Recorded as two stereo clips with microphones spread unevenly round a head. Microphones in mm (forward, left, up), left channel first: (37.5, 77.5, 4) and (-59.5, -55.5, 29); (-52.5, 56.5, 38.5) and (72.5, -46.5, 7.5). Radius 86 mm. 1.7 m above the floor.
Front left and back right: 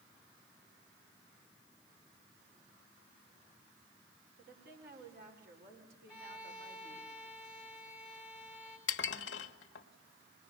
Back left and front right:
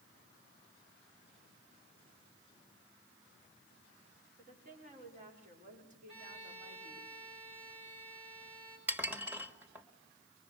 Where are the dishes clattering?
45° left, 1.3 m.